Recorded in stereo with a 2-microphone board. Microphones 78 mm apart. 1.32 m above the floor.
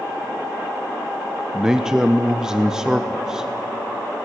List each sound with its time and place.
1.5 s a man speaking: 10° right (ahead or behind), 0.8 m